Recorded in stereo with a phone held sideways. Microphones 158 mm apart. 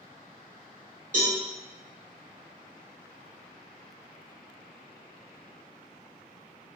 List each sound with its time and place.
1.1 s a cowbell: 50° right (ahead or behind), 1.9 m